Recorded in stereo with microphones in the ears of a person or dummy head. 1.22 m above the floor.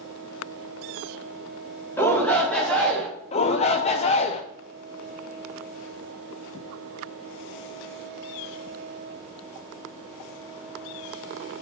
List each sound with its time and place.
2.0 s a shout: 10° left (ahead or behind), 1.8 m; by 3.1 s 5° left (ahead or behind), 3 m
3.3 s a shout: 35° left (ahead or behind), 0.5 m